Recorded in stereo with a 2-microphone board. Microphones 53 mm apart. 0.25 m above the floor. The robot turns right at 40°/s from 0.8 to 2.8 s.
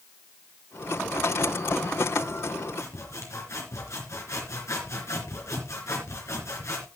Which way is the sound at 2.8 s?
65° left (ahead or behind).